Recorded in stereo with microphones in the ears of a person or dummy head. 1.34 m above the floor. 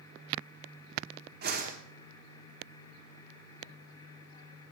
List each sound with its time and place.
1.4 s a whoosh: 55° right (ahead or behind), 1.9 m